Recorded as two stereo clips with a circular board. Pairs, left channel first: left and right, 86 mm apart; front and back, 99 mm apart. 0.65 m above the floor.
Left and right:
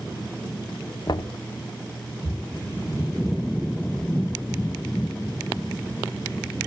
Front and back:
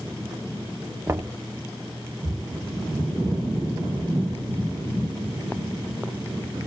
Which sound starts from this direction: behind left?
Knocking, at 1.1 s.